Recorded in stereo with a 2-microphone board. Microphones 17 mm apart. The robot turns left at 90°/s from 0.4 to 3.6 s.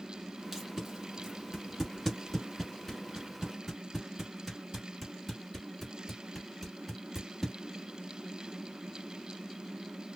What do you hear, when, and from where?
0.5 s tape being pulled: 25° right (ahead or behind), 1.1 m; by 7.5 s 5° right (ahead or behind), 1.1 m